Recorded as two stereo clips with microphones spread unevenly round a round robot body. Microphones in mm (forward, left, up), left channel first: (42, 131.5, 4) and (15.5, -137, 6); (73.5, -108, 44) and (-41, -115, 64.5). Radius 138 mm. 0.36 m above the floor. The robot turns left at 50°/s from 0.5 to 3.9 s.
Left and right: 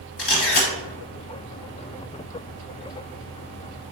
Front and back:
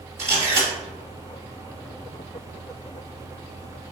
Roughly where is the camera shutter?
Behind left.